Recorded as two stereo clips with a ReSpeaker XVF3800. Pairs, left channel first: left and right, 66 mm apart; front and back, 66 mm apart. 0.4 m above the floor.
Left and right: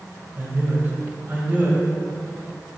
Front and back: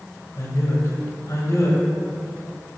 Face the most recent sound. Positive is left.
turn(degrees=-35)